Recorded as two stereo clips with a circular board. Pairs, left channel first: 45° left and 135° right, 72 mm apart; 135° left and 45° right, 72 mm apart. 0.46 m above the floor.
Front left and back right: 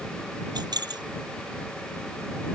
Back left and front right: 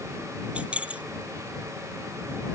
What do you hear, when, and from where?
0.6 s keys jangling: 120° right